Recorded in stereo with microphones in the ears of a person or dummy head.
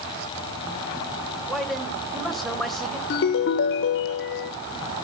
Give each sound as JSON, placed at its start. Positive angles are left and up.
{"t": 1.5, "sound": "a man speaking", "side_deg": 5, "distance_m": 1.4}
{"t": 3.1, "sound": "a ringtone", "side_deg": 60, "distance_m": 0.8}